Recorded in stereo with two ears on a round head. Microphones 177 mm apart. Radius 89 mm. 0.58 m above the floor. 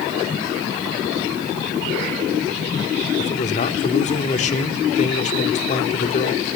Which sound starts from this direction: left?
A man speaking, at 3.2 s.